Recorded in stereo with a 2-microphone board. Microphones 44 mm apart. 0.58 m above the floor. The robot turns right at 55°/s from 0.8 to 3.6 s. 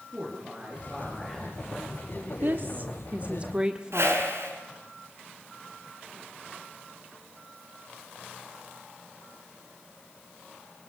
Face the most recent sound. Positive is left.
turn(degrees=-80)